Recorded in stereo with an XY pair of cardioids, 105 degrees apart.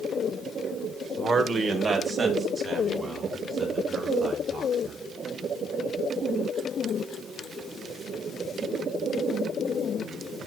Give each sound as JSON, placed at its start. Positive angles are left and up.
{"t": 1.2, "sound": "a man speaking", "azimuth_deg": -55, "distance_m": 1.3}